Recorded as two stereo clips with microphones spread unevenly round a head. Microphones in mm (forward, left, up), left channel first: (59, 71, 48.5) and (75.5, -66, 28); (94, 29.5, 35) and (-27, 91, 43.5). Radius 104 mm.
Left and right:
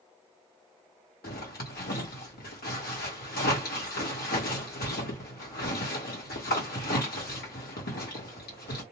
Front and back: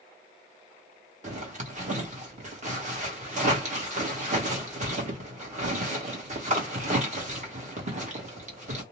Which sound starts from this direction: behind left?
A zipper, at 1.2 s.